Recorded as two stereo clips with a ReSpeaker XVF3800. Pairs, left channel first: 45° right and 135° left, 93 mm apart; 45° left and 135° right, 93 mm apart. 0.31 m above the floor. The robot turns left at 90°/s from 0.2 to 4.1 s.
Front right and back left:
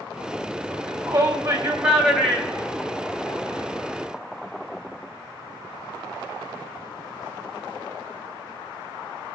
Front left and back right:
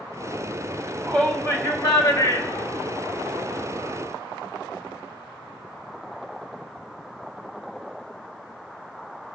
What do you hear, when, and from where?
0.7 s a shout: 165° left, 2 m; by 3.6 s 100° right, 2 m